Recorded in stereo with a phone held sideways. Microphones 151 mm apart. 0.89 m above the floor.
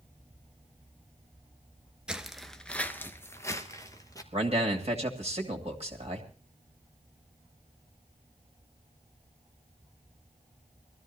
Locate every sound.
2.1 s footsteps: 5° right (ahead or behind), 0.9 m; by 4.2 s 25° left (ahead or behind), 1.5 m
4.3 s a man speaking: 45° right (ahead or behind), 2.5 m